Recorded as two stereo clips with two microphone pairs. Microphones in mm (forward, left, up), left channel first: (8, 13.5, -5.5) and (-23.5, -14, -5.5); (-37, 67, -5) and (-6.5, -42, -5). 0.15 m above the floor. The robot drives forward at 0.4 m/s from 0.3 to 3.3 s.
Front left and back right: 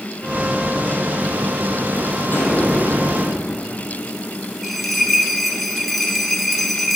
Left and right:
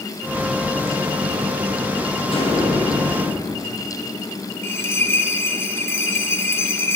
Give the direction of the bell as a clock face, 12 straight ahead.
8 o'clock.